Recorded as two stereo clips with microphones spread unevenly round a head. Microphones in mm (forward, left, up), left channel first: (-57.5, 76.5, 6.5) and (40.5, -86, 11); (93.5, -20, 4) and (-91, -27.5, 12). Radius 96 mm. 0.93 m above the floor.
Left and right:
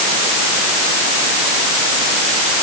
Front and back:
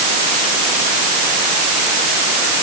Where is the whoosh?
No whoosh in this recording.